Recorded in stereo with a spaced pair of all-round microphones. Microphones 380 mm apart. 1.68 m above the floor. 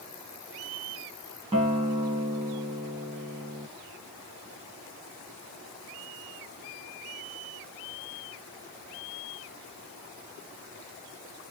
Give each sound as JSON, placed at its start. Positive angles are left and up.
{"t": 1.5, "sound": "a guitar", "side_deg": -15, "distance_m": 1.0}